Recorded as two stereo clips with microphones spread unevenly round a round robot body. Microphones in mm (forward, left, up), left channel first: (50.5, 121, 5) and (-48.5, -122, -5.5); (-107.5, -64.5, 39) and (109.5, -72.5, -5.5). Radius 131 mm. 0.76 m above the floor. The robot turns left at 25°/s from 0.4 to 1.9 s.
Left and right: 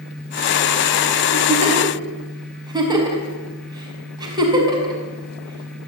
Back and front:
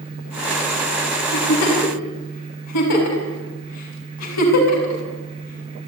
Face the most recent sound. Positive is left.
turn(degrees=175)